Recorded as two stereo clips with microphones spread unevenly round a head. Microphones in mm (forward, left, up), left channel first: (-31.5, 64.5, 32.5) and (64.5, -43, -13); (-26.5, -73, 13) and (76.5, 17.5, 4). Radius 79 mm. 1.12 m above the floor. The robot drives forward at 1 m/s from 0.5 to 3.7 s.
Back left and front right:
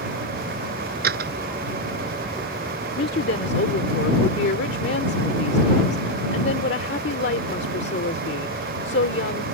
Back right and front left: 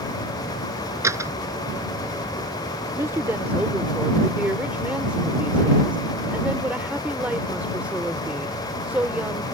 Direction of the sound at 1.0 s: 30° right.